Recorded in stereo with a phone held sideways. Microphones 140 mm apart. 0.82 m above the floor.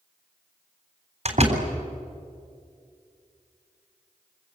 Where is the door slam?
50° right (ahead or behind), 3.5 m.